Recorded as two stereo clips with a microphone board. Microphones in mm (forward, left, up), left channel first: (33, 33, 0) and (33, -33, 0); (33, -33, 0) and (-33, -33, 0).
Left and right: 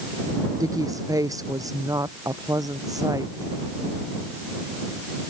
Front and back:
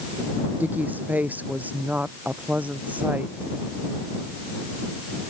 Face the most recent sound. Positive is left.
turn(degrees=-115)